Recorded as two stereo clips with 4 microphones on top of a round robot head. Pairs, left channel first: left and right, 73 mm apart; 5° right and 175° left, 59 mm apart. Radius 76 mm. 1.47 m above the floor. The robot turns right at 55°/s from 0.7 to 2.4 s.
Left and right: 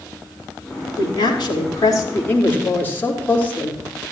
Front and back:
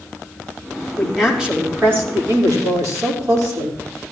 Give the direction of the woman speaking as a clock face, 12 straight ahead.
9 o'clock.